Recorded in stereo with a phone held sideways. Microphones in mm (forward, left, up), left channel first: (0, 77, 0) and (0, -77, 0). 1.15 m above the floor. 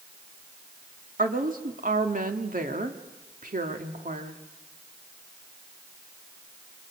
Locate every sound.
1.2 s a woman speaking: 65° right (ahead or behind), 2 m